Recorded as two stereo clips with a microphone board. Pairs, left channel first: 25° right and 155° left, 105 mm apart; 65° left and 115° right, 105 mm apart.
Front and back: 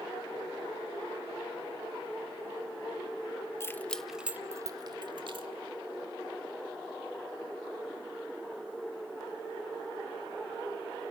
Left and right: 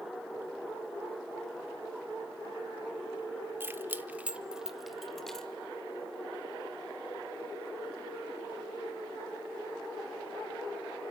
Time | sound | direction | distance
3.6 | keys jangling | 60° right | 0.7 m